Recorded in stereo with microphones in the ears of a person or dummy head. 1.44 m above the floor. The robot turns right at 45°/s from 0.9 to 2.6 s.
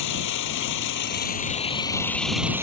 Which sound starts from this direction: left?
An engine running, at 0.0 s.